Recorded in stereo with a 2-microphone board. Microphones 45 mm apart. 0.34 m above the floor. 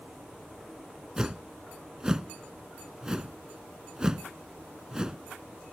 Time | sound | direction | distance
1.2 | a whoosh | 15° right (ahead or behind) | ?